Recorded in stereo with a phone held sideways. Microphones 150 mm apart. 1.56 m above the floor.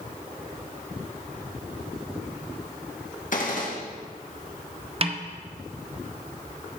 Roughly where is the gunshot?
Left.